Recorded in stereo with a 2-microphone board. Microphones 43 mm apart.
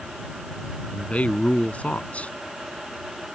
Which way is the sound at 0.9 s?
35° left (ahead or behind).